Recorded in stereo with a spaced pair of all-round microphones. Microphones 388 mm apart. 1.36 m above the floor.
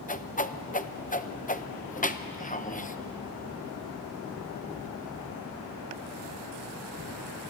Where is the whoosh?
20° left (ahead or behind), 0.6 m.